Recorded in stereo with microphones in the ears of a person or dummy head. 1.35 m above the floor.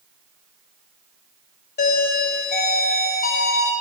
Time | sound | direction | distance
1.8 | a doorbell | 40° left (ahead or behind) | 1.7 m